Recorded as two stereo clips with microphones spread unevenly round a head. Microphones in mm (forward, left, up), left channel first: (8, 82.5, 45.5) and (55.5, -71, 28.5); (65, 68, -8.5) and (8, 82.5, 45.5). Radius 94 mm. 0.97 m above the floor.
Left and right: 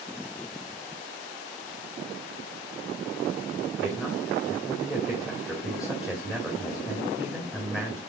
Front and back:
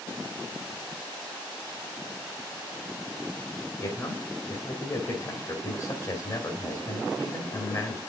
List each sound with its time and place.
3.8 s a man speaking: 15° left, 2 m